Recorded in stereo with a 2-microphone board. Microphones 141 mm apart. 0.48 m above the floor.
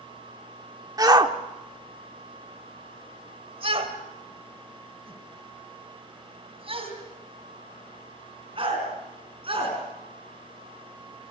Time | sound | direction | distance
1.0 | a shout | 25° right (ahead or behind) | 1.2 m